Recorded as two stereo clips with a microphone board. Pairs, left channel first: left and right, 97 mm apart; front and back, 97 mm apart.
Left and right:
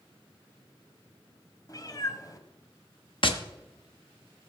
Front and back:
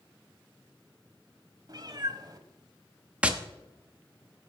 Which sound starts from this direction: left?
Tapping, at 3.2 s.